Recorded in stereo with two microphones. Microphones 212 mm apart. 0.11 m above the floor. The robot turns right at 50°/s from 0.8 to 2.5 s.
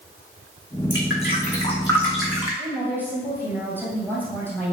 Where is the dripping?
65° left (ahead or behind), 2.5 m; by 2.6 s 15° right (ahead or behind), 2.5 m.